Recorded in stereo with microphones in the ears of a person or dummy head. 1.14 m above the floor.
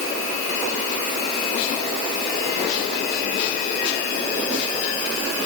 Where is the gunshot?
No gunshot in this recording.